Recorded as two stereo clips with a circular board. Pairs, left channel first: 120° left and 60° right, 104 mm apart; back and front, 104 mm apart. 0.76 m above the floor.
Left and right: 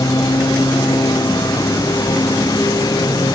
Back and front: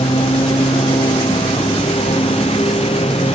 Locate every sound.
0.0 s a lawn mower: 175° left